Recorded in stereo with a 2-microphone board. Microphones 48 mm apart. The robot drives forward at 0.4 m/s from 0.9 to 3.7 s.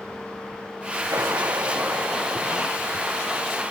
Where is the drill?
80° right; by 3.0 s 75° right (ahead or behind).